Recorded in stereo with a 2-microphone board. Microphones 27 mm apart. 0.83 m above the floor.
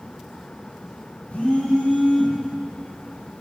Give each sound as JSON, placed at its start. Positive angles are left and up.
{"t": 1.3, "sound": "a phone buzzing", "side_deg": 75, "distance_m": 1.8}